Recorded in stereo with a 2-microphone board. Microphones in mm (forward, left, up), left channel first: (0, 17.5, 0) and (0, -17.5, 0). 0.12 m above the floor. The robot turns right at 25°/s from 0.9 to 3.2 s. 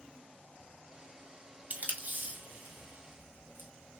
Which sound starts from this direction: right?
Tape being pulled, at 1.7 s.